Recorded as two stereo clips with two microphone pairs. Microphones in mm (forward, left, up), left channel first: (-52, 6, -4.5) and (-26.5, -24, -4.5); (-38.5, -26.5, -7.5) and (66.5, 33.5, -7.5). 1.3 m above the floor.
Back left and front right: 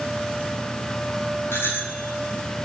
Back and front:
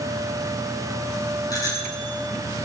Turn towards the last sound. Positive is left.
turn(degrees=150)